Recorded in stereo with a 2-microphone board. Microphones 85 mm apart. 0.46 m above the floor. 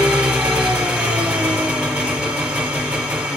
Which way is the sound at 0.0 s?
15° right (ahead or behind).